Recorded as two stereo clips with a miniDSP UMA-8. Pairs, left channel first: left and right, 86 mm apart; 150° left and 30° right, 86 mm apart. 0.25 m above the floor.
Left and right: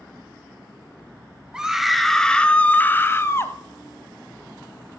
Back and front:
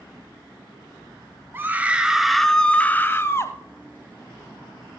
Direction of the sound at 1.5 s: 20° right.